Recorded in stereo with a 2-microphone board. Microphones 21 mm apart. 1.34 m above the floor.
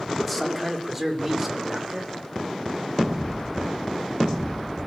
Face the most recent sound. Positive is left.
turn(degrees=-20)  # may be behind; listen again after turning